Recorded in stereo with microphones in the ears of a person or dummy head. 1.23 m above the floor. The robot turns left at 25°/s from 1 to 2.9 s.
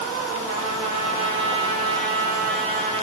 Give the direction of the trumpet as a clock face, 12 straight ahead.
3 o'clock.